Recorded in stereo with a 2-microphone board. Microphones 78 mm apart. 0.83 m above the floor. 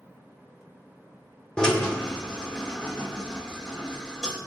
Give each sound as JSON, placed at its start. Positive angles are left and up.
{"t": 1.6, "sound": "a drill", "side_deg": 10, "distance_m": 3.0}